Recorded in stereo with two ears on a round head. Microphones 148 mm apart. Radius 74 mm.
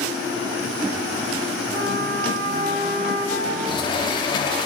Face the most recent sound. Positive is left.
turn(degrees=25)  # may be behind; listen again after turning